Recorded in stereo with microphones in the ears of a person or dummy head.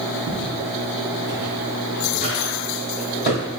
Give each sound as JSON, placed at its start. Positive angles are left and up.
{"t": 0.3, "sound": "footsteps", "side_deg": -15, "distance_m": 3.0}